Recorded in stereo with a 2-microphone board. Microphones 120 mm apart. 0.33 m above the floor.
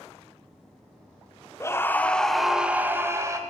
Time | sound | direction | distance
1.6 | a scream | 25° left (ahead or behind) | 0.9 m